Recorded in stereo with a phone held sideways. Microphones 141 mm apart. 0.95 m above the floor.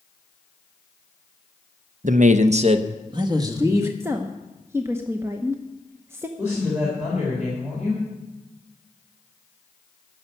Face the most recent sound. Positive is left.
turn(degrees=-10)  # may be behind; listen again after turning